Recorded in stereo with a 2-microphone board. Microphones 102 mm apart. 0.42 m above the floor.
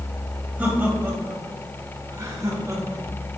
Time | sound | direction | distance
0.6 | laughter | 20° right (ahead or behind) | 2.5 m